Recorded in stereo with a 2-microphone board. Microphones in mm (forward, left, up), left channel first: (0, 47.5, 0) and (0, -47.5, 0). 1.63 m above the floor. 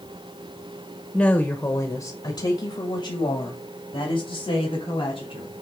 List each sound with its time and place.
1.1 s a woman speaking: 10° left (ahead or behind), 1.1 m; by 5.5 s 80° left, 4 m